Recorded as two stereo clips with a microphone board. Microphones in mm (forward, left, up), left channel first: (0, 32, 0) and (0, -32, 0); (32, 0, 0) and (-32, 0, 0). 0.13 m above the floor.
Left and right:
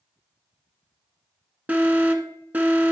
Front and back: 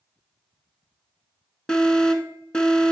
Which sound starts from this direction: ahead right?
An alarm, at 1.7 s.